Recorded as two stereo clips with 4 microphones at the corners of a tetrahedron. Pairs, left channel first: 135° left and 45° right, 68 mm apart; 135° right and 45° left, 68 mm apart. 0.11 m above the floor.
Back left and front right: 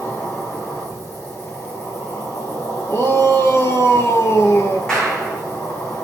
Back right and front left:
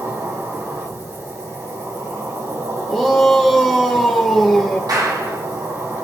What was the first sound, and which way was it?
An insect, 85° left.